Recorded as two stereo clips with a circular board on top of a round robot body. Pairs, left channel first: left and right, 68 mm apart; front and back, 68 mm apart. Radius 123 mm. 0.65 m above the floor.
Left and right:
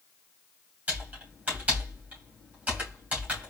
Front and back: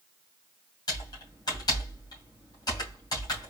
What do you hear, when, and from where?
0.9 s typing on a keyboard: 20° right, 2.5 m